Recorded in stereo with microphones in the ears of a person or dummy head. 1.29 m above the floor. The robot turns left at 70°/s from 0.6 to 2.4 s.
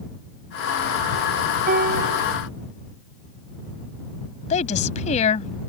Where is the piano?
50° right; by 2.3 s 95° right.